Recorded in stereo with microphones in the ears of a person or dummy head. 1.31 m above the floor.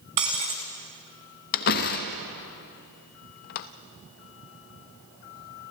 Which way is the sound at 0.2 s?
20° right (ahead or behind).